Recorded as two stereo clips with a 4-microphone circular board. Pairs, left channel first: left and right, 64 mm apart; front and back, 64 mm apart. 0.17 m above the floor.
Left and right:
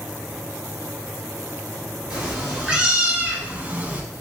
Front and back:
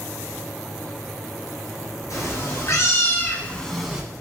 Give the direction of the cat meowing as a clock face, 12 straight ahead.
12 o'clock.